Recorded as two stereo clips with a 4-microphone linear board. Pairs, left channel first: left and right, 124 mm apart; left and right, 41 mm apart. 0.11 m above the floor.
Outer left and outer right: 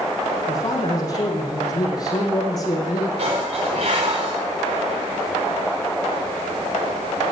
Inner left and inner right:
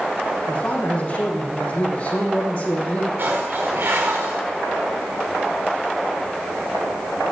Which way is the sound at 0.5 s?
30° left (ahead or behind).